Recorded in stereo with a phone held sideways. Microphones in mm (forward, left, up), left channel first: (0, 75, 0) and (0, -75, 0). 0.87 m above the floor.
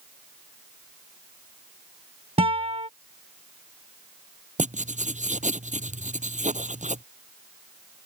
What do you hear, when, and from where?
2.4 s a guitar: 45° right (ahead or behind)
4.6 s writing: 60° right (ahead or behind)